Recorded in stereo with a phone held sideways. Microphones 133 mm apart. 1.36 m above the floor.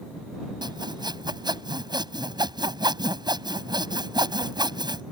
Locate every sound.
0.6 s sawing: 35° right (ahead or behind)